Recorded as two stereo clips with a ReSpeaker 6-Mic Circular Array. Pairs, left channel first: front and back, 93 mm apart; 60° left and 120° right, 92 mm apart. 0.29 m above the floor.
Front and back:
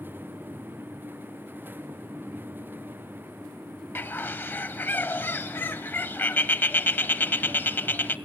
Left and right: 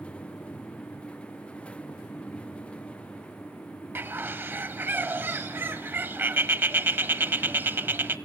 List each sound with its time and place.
4.0 s a bird: 60° right, 0.8 m